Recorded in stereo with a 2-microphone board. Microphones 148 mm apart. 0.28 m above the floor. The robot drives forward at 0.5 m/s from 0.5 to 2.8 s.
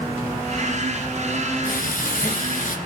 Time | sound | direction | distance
1.6 | frying | 75° left (ahead or behind) | 2.5 m